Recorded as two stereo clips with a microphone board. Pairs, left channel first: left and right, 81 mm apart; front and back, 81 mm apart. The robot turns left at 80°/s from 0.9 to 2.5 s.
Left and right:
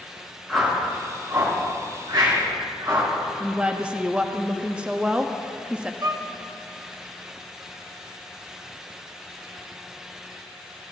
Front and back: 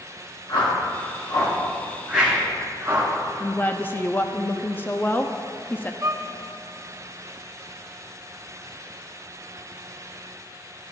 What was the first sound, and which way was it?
A whoosh, straight ahead.